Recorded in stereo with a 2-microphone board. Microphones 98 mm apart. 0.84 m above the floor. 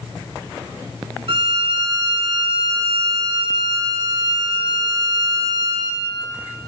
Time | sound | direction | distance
1.3 | a violin | 60° right (ahead or behind) | 2 m